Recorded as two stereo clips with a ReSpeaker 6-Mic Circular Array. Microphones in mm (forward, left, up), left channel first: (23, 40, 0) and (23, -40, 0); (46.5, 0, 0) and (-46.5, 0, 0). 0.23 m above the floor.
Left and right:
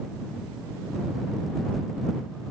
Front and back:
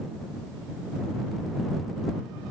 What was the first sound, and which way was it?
Only background noise.